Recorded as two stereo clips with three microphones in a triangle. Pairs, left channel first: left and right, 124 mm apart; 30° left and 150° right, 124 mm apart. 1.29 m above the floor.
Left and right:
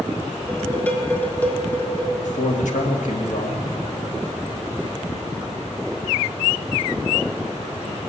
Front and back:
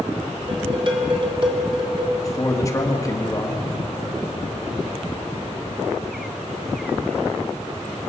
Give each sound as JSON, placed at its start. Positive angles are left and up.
{"t": 0.5, "sound": "dishes clattering", "azimuth_deg": 165, "distance_m": 1.9}
{"t": 2.2, "sound": "a man speaking", "azimuth_deg": 95, "distance_m": 1.9}